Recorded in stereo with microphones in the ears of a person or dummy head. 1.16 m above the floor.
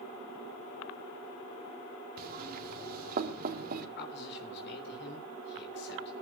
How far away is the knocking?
About 2 m.